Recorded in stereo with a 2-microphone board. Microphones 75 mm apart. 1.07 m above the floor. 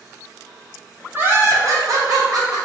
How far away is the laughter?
About 1.0 m.